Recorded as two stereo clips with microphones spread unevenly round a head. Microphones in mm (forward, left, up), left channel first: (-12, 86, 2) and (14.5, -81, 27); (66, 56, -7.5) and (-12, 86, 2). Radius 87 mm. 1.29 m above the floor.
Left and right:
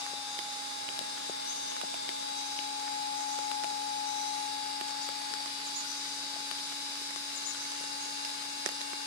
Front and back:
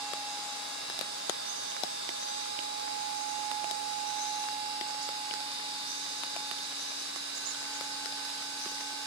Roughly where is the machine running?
Behind.